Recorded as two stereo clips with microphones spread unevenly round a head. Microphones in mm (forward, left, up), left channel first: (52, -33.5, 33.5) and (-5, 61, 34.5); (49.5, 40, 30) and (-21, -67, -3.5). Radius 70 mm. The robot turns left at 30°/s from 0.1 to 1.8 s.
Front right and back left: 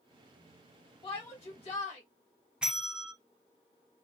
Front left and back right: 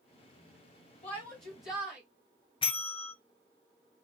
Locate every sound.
1.0 s a shout: 5° left, 1.2 m; by 2.0 s 20° right, 1.2 m
2.6 s a bell: 40° left, 1.1 m